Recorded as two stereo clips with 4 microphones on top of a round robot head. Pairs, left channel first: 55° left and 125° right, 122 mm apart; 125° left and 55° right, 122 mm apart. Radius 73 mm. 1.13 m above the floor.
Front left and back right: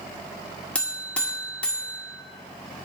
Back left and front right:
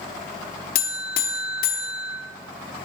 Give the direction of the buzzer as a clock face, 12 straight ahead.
8 o'clock.